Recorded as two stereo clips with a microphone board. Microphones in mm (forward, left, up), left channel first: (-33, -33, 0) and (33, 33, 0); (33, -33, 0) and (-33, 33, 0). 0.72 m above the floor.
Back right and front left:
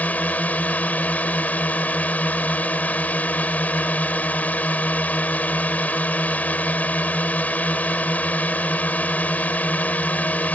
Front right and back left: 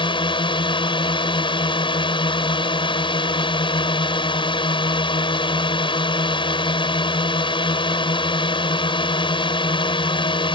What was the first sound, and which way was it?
A drone, 65° right.